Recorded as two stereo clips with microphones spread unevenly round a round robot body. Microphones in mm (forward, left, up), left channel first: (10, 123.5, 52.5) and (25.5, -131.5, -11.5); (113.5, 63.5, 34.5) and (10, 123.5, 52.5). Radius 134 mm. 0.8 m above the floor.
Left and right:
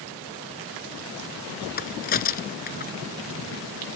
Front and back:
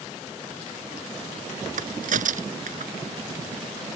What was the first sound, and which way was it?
A crack, 150° left.